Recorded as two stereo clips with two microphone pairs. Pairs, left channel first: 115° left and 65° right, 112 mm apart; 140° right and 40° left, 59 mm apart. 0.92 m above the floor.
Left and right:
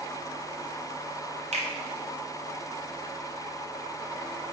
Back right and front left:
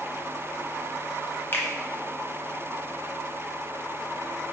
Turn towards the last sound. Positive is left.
turn(degrees=-85)